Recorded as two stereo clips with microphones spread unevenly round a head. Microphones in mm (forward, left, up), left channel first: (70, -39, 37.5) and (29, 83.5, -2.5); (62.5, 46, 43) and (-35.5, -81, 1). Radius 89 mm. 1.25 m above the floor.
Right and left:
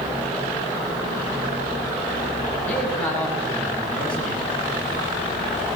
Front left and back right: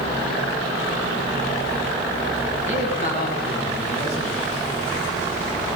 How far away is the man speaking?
About 9.5 m.